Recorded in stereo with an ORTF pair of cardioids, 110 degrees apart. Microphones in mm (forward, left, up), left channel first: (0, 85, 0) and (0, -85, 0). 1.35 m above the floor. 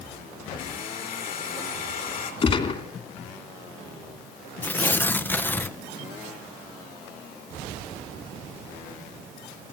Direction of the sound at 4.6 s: 10° left.